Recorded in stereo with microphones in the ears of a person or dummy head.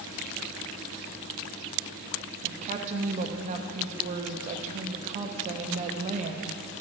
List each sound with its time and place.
2.4 s a woman speaking: 35° right (ahead or behind), 0.5 m